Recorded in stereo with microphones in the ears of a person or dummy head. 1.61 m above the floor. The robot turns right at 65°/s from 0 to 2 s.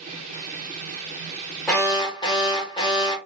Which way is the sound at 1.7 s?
10° left (ahead or behind).